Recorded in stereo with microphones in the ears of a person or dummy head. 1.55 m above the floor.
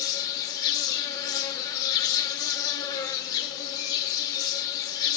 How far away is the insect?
About 1.0 m.